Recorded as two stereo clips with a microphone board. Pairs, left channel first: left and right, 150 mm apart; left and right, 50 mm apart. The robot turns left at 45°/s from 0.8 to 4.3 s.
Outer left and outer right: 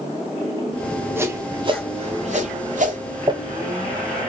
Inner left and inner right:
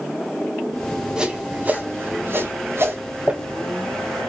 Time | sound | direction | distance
1.2 | a whoosh | 15° right (ahead or behind) | 0.9 m
3.3 | crumpling | 30° right (ahead or behind) | 0.6 m